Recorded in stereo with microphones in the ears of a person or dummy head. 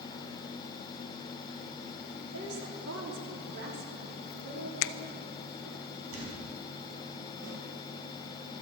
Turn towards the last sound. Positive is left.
turn(degrees=-80)